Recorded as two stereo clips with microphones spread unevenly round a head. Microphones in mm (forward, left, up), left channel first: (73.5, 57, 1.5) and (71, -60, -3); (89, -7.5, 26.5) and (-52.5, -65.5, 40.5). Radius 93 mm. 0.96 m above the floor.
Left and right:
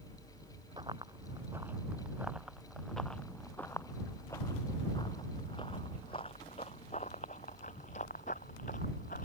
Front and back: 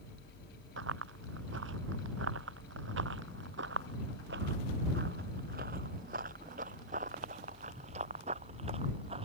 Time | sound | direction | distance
0.8 | running footsteps | 165° right | ?